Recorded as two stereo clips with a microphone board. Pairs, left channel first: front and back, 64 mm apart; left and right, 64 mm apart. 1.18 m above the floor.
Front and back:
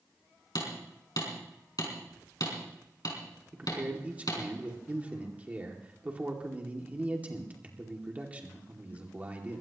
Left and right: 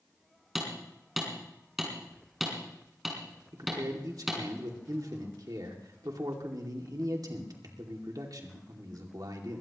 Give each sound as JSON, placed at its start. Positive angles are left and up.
{"t": 0.6, "sound": "hammering", "azimuth_deg": 0, "distance_m": 4.5}
{"t": 3.5, "sound": "a man speaking", "azimuth_deg": -110, "distance_m": 2.5}